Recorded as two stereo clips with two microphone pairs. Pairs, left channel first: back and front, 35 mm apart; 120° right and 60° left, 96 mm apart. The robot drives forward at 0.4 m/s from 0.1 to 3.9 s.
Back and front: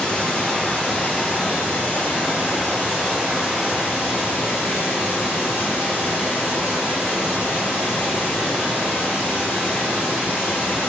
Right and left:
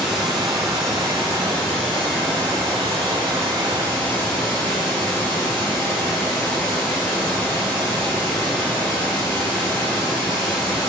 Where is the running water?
150° left, 1.2 m; by 10.9 s 170° left, 2.5 m.